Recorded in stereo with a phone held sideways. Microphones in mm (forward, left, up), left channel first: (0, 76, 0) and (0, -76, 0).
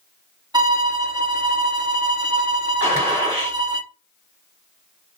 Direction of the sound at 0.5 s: 25° right (ahead or behind).